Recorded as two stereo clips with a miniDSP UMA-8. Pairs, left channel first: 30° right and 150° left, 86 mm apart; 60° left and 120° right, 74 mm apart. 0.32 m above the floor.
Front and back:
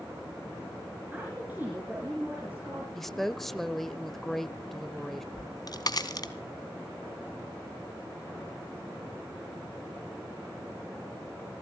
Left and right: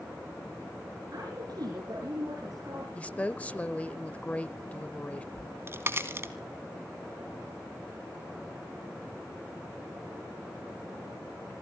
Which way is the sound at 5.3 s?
65° right.